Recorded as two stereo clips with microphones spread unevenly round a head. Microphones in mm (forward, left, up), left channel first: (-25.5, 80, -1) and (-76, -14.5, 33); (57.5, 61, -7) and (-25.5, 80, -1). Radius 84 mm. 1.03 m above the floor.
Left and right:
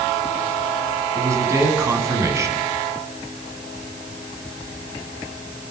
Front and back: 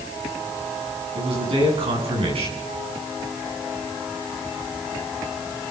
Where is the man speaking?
Straight behind, 8.5 m.